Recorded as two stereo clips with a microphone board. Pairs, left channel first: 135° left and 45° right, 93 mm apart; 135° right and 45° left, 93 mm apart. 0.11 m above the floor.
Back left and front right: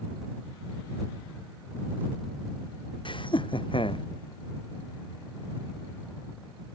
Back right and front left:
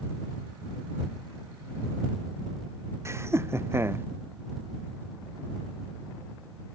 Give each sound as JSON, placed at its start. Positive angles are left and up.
{"t": 3.0, "sound": "laughter", "azimuth_deg": 105}